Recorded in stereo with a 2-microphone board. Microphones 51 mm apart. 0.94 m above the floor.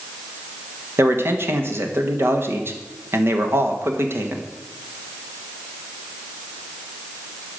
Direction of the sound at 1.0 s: 50° right (ahead or behind).